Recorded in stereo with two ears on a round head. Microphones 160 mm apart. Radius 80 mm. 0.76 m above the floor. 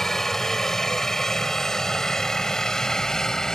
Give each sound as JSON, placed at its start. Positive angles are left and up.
{"t": 0.0, "sound": "a helicopter", "side_deg": 0}